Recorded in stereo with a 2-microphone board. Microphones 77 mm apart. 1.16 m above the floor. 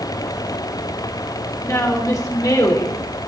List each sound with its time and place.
1.6 s a woman speaking: 40° left (ahead or behind), 4 m; by 3.0 s 60° left (ahead or behind), 4 m